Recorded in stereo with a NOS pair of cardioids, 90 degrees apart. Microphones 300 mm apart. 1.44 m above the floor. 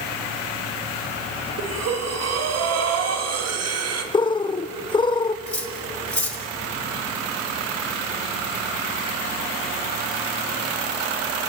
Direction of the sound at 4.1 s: 15° left.